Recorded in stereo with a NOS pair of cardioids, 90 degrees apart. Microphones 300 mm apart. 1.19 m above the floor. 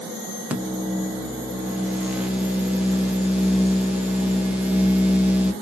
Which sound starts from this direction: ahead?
A microwave, at 0.5 s.